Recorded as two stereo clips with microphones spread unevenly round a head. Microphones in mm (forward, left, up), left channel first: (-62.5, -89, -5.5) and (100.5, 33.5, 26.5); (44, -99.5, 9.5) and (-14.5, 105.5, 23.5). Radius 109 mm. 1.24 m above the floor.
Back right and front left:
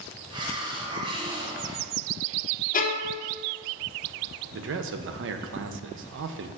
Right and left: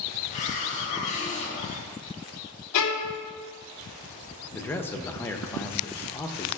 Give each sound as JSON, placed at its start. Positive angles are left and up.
{"t": 0.3, "sound": "a hiss", "azimuth_deg": -20, "distance_m": 1.0}
{"t": 2.7, "sound": "a violin", "azimuth_deg": -90, "distance_m": 0.8}
{"t": 4.5, "sound": "a man speaking", "azimuth_deg": 5, "distance_m": 0.7}